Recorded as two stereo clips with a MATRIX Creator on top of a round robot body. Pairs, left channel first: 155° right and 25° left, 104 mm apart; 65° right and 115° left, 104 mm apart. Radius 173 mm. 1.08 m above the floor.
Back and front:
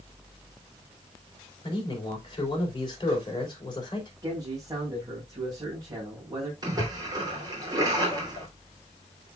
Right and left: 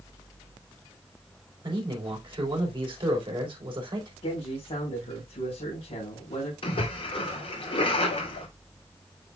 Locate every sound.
1.6 s a man speaking: 155° left, 3.5 m
4.2 s a man speaking: 35° right, 4.5 m
6.6 s a splash: 30° right, 3.5 m